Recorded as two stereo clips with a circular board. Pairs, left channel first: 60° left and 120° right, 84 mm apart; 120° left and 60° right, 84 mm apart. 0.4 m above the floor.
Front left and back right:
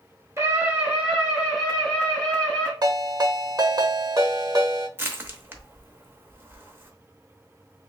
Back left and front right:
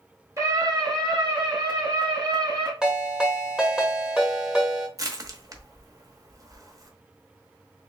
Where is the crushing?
70° right, 0.9 m.